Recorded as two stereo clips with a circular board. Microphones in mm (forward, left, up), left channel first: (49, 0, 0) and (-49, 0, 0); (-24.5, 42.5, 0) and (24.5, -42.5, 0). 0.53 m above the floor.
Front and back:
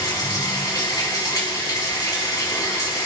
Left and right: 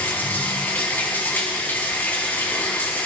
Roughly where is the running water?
Ahead left.